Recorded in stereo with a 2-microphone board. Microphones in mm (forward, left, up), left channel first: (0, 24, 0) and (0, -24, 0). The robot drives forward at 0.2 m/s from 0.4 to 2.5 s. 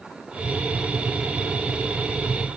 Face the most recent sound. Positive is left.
No sound to turn to.